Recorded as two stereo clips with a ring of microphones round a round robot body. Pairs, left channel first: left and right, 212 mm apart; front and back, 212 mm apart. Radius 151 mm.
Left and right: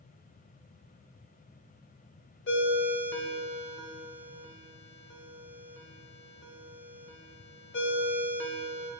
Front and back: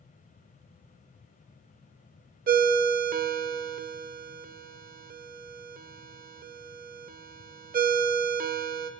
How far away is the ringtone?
About 0.6 m.